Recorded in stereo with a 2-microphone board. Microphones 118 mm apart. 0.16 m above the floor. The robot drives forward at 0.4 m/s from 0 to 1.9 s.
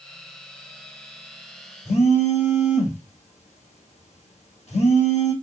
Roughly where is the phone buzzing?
Left.